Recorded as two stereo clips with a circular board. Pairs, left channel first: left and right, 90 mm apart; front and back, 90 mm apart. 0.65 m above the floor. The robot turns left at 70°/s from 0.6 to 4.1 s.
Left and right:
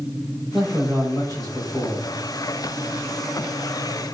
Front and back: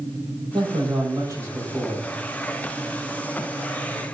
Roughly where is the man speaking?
Behind.